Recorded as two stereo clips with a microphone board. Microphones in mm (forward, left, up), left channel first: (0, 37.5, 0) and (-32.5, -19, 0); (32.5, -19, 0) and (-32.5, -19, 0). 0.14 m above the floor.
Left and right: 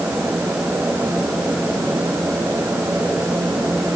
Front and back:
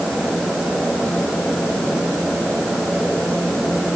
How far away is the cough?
I don't hear a cough.